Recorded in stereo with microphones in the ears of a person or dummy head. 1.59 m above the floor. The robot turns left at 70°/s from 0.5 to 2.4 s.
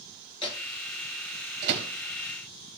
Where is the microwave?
25° left (ahead or behind), 1.9 m; by 1.9 s 70° right (ahead or behind), 1.9 m.